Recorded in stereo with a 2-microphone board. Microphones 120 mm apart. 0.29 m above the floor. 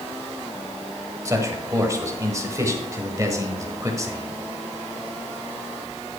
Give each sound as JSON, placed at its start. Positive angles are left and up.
{"t": 1.2, "sound": "a man speaking", "side_deg": -25, "distance_m": 1.4}